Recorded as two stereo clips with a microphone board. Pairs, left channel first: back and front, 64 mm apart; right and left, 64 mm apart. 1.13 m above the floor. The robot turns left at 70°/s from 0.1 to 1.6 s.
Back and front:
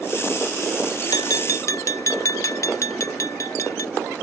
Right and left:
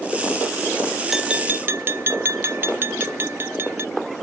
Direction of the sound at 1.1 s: Straight behind.